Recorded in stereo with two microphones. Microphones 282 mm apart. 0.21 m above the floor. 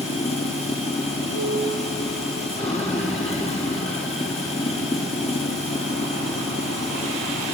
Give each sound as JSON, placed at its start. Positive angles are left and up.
{"t": 0.0, "sound": "running water", "side_deg": 20, "distance_m": 1.3}
{"t": 1.3, "sound": "a piano", "side_deg": -70, "distance_m": 5.5}